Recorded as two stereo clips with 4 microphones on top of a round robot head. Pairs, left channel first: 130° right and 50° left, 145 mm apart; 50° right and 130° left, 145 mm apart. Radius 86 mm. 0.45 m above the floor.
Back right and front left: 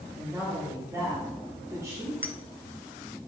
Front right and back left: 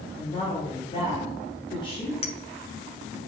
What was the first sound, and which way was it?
A woman speaking, 10° right.